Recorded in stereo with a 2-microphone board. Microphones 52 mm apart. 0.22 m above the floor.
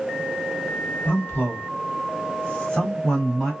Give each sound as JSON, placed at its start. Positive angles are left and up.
{"t": 1.1, "sound": "a man speaking", "side_deg": 30, "distance_m": 1.5}